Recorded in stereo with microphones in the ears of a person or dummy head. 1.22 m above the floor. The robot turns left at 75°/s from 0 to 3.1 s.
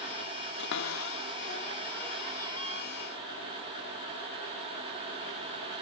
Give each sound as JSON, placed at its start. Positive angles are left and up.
{"t": 0.6, "sound": "a cupboard door", "side_deg": 65}